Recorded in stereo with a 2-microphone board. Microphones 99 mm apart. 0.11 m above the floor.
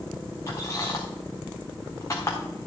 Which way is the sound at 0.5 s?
35° left (ahead or behind).